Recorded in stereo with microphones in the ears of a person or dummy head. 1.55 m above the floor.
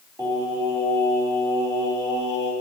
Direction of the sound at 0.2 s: 15° right (ahead or behind).